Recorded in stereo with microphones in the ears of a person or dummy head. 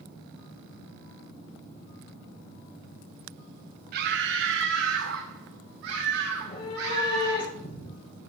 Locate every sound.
3.9 s a scream: 55° right (ahead or behind), 0.7 m; by 7.4 s 65° right (ahead or behind), 3 m
6.4 s a cat meowing: 30° left (ahead or behind), 4 m